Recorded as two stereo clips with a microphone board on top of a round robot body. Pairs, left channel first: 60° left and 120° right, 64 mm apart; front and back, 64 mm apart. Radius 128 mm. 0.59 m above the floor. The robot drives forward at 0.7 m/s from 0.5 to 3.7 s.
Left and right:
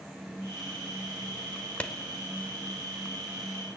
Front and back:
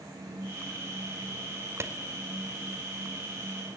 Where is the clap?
130° left, 2.5 m.